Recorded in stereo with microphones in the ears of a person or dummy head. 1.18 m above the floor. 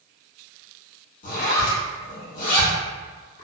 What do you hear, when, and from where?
1.2 s a zipper: 55° left (ahead or behind), 1.3 m